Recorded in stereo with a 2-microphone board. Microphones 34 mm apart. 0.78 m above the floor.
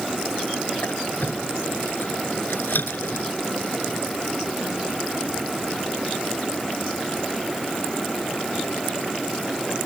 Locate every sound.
0.8 s a squeak: 75° left (ahead or behind)